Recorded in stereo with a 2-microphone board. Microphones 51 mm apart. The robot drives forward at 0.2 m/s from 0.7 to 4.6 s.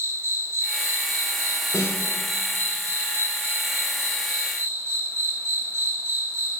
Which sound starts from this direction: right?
An insect, at 0.0 s.